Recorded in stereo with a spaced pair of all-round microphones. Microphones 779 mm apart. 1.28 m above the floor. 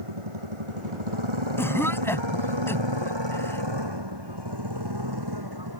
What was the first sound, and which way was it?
A motorcycle, 45° right (ahead or behind).